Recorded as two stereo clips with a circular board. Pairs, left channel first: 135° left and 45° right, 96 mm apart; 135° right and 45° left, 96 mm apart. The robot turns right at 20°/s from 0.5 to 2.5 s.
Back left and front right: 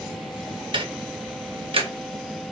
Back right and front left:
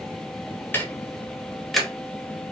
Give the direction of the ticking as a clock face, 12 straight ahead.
2 o'clock.